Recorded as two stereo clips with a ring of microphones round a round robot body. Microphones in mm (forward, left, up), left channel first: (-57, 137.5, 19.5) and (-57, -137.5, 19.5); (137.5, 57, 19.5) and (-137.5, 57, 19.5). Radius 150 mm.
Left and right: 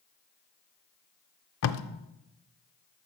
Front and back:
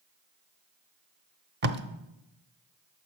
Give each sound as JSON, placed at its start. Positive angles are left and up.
{"t": 1.6, "sound": "tape being pulled", "azimuth_deg": 130, "distance_m": 0.7}